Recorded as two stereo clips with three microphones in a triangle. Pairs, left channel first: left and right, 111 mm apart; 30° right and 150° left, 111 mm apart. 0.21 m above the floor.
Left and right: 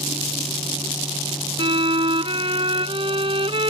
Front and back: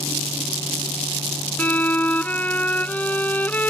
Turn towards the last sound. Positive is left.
turn(degrees=-105)